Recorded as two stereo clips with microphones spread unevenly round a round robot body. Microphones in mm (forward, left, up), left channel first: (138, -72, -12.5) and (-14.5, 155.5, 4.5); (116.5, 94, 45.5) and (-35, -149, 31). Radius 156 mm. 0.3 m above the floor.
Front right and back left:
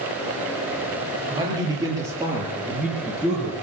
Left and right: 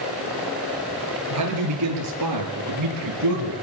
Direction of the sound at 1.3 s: 160° right.